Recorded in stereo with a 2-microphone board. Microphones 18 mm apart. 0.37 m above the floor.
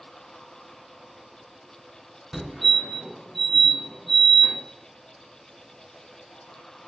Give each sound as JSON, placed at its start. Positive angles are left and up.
{"t": 2.3, "sound": "a fire alarm", "side_deg": -10, "distance_m": 1.9}